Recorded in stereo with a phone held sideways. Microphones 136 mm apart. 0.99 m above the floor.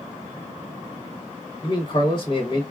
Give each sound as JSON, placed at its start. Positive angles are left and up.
{"t": 1.6, "sound": "a man speaking", "side_deg": 35, "distance_m": 1.0}